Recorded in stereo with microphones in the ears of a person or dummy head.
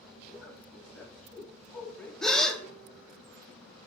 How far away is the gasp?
About 0.5 m.